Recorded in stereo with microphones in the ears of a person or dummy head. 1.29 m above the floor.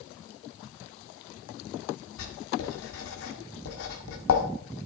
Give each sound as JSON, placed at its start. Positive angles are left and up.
{"t": 2.2, "sound": "writing", "side_deg": 70, "distance_m": 1.7}